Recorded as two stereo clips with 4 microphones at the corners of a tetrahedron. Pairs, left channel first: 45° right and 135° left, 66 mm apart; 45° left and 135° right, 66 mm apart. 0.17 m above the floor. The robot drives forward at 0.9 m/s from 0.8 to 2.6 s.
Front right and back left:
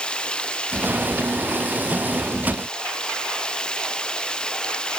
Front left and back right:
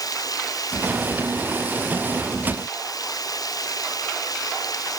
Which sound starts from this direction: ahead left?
Running water, at 0.0 s.